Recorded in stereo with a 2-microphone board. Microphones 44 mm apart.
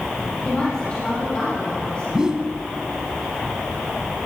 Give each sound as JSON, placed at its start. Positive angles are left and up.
{"t": 0.5, "sound": "a woman speaking", "side_deg": 25, "distance_m": 7.0}
{"t": 2.1, "sound": "a whoosh", "side_deg": -15, "distance_m": 1.0}